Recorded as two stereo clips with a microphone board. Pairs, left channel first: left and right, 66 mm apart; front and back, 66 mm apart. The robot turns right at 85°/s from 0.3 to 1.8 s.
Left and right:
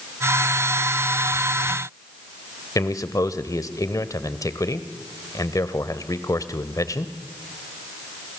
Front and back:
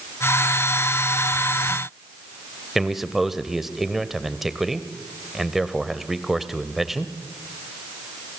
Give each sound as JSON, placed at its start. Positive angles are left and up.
{"t": 2.8, "sound": "a man speaking", "azimuth_deg": 95, "distance_m": 1.4}